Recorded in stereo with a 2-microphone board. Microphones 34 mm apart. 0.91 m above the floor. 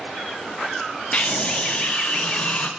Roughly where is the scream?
Left.